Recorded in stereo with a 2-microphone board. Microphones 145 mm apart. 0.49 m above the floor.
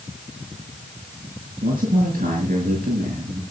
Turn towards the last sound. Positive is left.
turn(degrees=-70)  # may be behind; listen again after turning